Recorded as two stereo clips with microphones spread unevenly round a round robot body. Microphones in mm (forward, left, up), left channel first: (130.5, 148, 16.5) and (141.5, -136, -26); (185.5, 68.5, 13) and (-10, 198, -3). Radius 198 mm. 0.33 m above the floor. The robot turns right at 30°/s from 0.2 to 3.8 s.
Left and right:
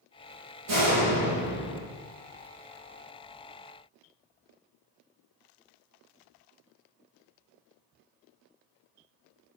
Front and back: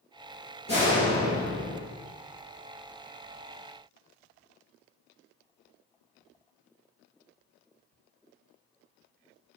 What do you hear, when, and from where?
0.7 s a door slam: 100° right, 7.5 m; by 1.8 s 65° right, 7.5 m